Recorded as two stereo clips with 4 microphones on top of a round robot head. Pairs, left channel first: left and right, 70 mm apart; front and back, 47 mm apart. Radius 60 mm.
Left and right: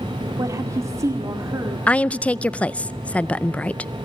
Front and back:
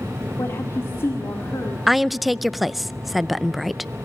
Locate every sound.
0.4 s a woman speaking: 45° right, 1.9 m
1.9 s a woman speaking: 95° left, 0.6 m